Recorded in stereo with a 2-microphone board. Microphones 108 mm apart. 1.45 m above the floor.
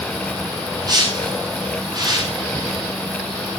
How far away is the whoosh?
About 6.5 m.